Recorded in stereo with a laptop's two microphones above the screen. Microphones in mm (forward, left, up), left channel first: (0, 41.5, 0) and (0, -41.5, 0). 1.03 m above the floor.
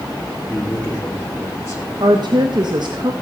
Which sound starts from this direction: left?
A man speaking, at 0.5 s.